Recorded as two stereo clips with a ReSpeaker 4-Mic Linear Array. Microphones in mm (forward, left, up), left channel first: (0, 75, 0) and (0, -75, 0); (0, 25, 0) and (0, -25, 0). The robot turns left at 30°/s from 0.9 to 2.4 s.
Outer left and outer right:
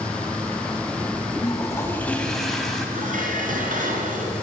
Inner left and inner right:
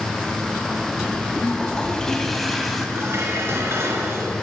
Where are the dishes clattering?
60° right (ahead or behind), 2.5 m.